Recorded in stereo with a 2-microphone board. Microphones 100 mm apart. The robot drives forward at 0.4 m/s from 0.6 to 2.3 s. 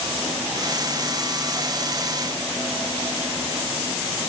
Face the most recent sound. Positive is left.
No sound to turn to.